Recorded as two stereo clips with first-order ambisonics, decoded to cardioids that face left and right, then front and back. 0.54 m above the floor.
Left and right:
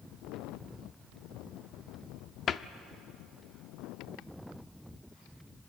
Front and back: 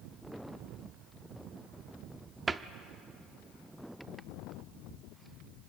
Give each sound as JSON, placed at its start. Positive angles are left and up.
{"t": 2.5, "sound": "a cupboard door", "azimuth_deg": 115, "distance_m": 0.5}